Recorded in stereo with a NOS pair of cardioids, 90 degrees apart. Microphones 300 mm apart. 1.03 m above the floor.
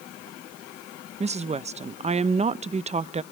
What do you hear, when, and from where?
1.2 s a woman speaking: 25° right, 0.5 m